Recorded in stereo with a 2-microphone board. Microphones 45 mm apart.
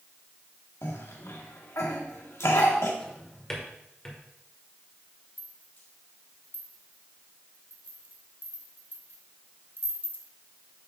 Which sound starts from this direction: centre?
A drawer, at 3.0 s.